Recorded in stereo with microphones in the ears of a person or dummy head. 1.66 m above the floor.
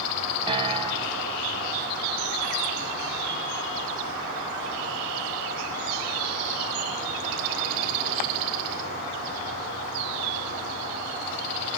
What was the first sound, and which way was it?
A piano, 35° right (ahead or behind).